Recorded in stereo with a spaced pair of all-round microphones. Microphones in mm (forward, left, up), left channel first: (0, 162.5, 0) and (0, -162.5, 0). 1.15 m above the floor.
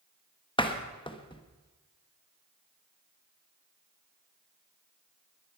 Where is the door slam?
15° left (ahead or behind), 1.2 m.